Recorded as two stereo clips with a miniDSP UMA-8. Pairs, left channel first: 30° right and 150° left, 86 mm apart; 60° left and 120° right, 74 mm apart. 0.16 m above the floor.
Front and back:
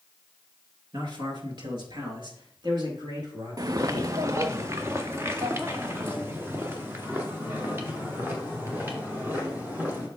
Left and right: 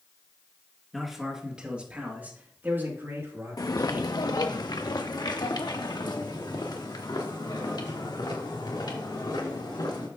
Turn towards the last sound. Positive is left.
turn(degrees=85)